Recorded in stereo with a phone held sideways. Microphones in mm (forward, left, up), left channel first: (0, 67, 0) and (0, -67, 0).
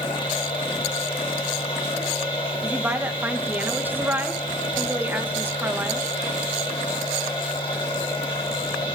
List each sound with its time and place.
0.0 s a machine running: 40° left (ahead or behind), 5 m
2.6 s a woman speaking: 15° right (ahead or behind), 1.1 m